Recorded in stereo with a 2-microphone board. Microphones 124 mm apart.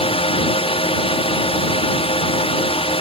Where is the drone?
50° left (ahead or behind).